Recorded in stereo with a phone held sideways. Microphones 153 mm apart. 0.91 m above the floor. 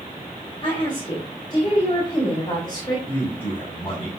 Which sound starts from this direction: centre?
A man speaking, at 3.1 s.